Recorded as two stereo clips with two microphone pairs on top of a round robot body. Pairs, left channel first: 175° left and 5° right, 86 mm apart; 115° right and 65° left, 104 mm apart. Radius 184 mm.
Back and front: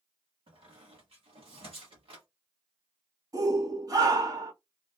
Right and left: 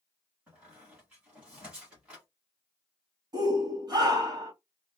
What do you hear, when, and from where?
0.5 s a squeak: 15° right, 1.1 m
3.3 s a shout: 25° left, 1.6 m